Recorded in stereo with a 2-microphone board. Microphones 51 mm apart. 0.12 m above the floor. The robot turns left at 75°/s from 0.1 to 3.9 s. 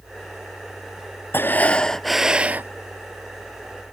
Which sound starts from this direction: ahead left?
Breathing, at 1.3 s.